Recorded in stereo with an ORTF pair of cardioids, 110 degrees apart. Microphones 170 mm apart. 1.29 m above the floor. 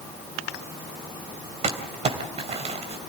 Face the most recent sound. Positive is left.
turn(degrees=-40)